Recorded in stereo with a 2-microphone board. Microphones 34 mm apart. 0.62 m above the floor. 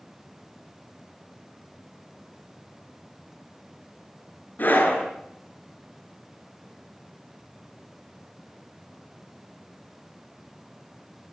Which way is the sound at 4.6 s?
60° left (ahead or behind).